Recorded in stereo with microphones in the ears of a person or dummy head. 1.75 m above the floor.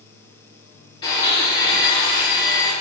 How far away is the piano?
I don't hear a piano.